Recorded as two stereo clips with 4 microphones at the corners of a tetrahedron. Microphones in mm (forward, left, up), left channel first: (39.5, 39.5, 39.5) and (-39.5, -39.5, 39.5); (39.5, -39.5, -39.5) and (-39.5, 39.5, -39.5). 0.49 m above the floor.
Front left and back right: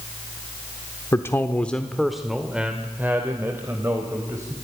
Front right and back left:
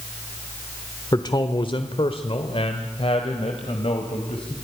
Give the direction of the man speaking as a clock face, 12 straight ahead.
12 o'clock.